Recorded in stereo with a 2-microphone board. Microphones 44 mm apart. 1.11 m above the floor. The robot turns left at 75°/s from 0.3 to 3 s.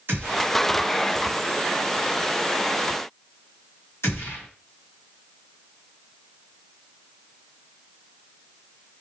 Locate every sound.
0.1 s a gunshot: 60° right (ahead or behind), 1.8 m; by 4.5 s 85° left, 1.8 m